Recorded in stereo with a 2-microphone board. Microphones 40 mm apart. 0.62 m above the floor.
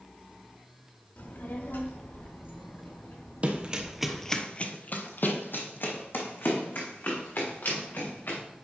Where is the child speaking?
50° left (ahead or behind), 1.2 m; by 4.4 s 85° left, 6 m.